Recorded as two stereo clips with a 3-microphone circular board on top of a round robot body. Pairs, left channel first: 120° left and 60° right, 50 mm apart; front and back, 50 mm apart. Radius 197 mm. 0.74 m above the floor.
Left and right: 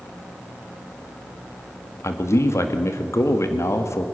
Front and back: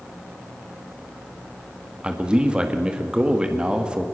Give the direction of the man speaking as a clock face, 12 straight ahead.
8 o'clock.